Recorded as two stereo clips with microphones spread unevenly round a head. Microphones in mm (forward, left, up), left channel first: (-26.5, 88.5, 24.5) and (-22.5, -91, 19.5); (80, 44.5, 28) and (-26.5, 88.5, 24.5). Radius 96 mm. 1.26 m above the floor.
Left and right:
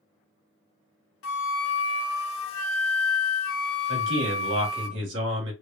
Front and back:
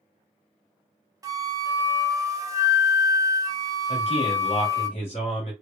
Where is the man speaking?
70° right, 1.4 m.